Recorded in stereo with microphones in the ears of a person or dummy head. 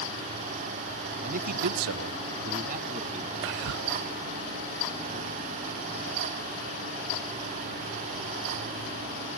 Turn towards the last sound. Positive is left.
turn(degrees=-65)  # may be behind; listen again after turning